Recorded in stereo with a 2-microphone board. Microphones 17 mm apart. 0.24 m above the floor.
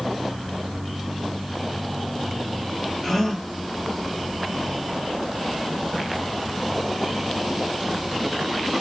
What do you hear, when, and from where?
3.0 s a gasp: 30° left (ahead or behind), 2.5 m